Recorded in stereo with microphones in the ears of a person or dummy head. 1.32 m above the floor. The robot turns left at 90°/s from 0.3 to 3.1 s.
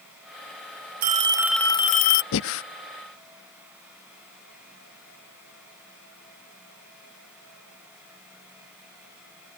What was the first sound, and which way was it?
A phone ringing, 130° right.